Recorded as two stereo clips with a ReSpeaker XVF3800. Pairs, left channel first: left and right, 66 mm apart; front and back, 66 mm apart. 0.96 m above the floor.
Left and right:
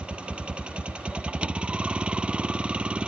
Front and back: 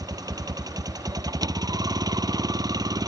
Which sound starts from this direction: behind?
A vehicle, at 0.0 s.